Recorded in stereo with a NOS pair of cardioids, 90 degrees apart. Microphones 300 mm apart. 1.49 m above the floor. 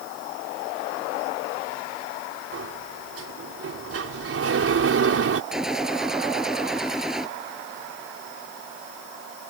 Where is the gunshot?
Straight ahead.